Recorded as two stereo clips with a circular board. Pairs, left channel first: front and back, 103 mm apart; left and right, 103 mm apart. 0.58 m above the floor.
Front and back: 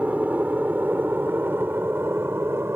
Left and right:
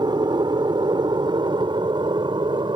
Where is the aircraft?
110° right; by 2.8 s 120° right.